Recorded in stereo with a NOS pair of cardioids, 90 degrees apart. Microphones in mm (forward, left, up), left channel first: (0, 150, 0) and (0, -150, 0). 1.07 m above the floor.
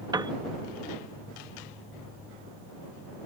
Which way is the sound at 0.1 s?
15° right.